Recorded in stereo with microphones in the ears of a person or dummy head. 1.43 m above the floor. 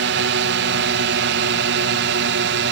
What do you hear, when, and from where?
0.0 s a drone: 60° right (ahead or behind)